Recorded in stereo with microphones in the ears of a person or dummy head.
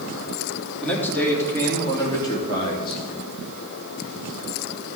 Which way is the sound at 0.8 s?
10° left (ahead or behind).